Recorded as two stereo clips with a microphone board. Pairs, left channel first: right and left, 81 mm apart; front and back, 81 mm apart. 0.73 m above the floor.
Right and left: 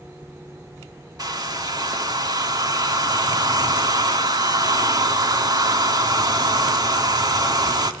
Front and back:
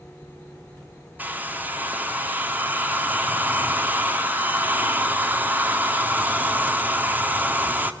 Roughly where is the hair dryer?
Behind left.